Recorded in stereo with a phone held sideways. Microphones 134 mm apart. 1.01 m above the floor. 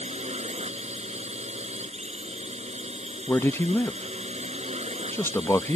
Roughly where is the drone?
Right.